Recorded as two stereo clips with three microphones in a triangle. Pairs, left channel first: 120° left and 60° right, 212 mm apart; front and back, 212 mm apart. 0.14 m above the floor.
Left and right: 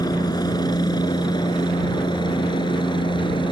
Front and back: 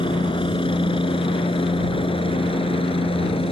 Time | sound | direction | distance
0.0 | a helicopter | 55° left | ?